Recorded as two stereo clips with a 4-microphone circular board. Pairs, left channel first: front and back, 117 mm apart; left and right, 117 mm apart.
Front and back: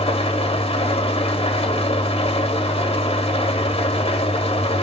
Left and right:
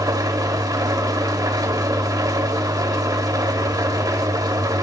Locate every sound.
0.0 s an engine running: 35° right, 1.9 m